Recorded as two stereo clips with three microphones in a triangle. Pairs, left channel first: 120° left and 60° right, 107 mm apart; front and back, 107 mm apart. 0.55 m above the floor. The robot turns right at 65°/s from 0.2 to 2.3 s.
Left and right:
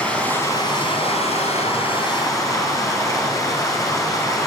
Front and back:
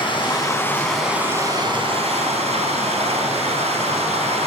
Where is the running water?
40° left, 4 m; by 4.5 s 175° left, 4 m.